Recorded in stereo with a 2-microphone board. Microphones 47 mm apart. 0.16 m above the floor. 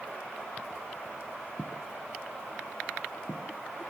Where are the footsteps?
45° left (ahead or behind), 2 m; by 3.5 s 55° left (ahead or behind), 3 m.